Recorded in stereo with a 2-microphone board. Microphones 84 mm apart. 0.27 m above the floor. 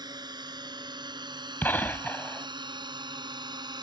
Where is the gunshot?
25° left (ahead or behind).